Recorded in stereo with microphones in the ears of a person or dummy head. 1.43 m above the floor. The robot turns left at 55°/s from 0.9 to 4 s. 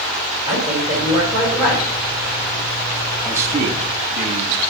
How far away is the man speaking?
About 1.5 m.